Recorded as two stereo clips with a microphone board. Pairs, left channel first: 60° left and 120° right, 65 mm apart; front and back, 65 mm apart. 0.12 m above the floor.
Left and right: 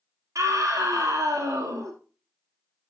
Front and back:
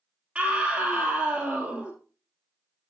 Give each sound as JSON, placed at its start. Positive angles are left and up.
{"t": 0.3, "sound": "a scream", "azimuth_deg": -110, "distance_m": 2.5}